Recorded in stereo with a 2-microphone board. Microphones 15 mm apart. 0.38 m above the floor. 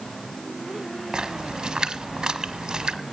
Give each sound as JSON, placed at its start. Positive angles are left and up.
{"t": 1.1, "sound": "a splash", "side_deg": -75, "distance_m": 1.2}